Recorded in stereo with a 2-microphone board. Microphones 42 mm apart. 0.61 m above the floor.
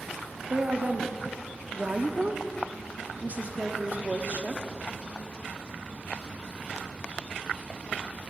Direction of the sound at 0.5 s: 45° right (ahead or behind).